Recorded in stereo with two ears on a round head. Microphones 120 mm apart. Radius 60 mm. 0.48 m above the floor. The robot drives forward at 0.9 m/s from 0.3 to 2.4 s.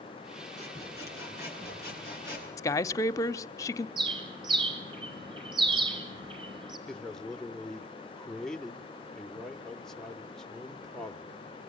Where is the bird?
40° right (ahead or behind), 4.5 m.